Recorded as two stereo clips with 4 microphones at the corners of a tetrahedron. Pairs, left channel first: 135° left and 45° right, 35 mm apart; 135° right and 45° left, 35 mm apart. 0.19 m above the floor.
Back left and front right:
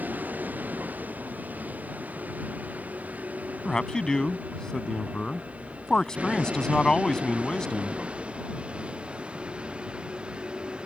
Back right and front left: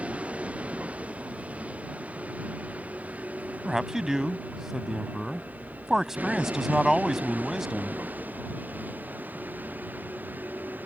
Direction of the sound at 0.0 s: 5° right.